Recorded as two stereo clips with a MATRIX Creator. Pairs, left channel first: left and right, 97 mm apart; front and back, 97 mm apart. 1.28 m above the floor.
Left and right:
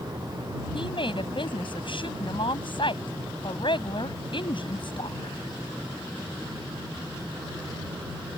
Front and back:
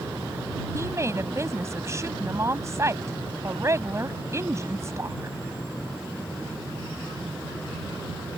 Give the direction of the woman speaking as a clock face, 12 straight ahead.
8 o'clock.